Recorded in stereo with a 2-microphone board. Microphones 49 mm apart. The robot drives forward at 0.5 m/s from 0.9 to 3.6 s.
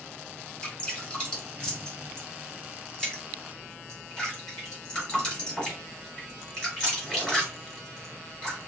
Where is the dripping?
10° left (ahead or behind), 3 m; by 8.6 s 5° left (ahead or behind), 4.5 m.